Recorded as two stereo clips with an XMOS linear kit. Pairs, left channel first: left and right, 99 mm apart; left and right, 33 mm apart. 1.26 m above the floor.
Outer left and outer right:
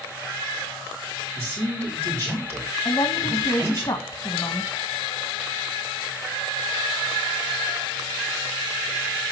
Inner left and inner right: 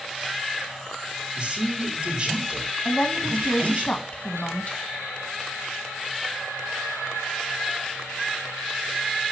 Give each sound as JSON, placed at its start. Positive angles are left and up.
{"t": 1.4, "sound": "a man speaking", "side_deg": -25, "distance_m": 5.5}
{"t": 2.9, "sound": "a woman speaking", "side_deg": 60, "distance_m": 1.5}